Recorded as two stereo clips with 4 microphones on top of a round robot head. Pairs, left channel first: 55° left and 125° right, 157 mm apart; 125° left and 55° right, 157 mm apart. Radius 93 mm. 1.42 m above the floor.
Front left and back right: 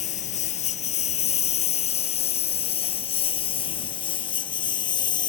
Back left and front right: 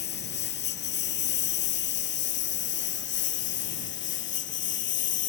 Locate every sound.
0.0 s a lawn mower: 105° left; by 5.3 s 120° left